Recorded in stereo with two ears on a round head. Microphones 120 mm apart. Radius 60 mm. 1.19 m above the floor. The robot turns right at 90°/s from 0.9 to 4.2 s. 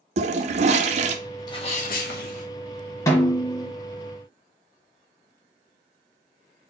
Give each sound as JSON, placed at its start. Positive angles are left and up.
{"t": 0.2, "sound": "a toilet flushing", "side_deg": -50, "distance_m": 0.6}
{"t": 1.5, "sound": "a sneeze", "azimuth_deg": 30, "distance_m": 1.2}
{"t": 3.1, "sound": "a snare drum", "azimuth_deg": 145, "distance_m": 1.3}